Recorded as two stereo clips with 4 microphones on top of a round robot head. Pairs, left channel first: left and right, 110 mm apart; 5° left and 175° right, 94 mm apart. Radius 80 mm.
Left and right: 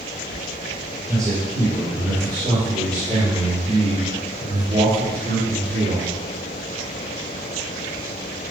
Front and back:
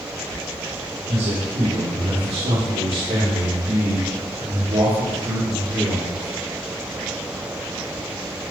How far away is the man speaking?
About 4 m.